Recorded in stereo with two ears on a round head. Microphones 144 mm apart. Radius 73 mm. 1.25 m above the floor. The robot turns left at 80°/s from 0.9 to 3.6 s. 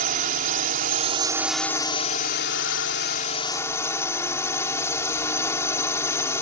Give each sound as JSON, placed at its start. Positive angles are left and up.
{"t": 0.0, "sound": "a drone", "azimuth_deg": -125}